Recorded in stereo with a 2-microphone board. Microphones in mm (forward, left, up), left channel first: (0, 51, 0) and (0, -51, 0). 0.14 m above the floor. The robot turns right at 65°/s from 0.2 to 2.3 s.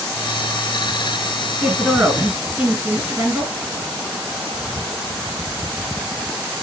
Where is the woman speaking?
Centre (ahead or behind), 1.7 m; by 3.5 s 20° right (ahead or behind), 1.7 m.